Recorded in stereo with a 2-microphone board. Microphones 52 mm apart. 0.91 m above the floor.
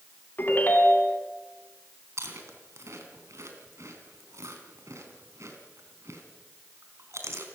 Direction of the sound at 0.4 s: 40° left (ahead or behind).